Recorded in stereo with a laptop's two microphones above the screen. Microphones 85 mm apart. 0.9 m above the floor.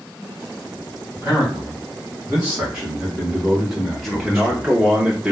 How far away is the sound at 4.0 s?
About 0.5 m.